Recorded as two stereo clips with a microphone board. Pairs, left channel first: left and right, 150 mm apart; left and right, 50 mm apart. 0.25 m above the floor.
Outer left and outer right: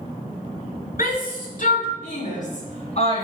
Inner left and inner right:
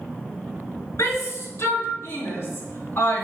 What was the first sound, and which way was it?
A shout, 70° left (ahead or behind).